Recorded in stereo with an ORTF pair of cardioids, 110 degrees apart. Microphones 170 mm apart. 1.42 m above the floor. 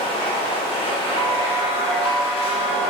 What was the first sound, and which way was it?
A machine running, 40° left.